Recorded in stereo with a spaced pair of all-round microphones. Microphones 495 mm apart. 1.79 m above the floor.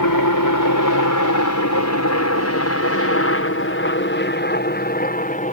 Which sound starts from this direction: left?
A helicopter, at 0.0 s.